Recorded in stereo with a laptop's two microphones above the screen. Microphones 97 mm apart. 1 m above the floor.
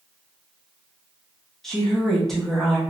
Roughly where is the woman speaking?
Centre.